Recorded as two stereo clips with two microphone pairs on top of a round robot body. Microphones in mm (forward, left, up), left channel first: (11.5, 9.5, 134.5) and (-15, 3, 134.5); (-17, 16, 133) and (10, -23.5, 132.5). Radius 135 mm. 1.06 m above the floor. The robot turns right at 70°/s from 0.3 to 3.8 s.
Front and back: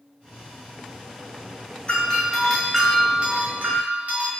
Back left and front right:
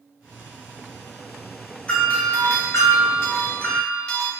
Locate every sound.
1.9 s a doorbell: 55° left, 1.4 m; by 4.3 s 170° right, 1.4 m